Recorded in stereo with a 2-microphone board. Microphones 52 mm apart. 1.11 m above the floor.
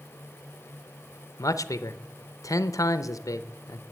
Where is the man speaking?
85° left, 0.6 m.